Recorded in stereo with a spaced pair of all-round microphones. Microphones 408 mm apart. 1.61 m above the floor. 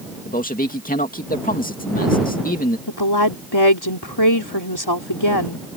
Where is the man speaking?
20° left (ahead or behind).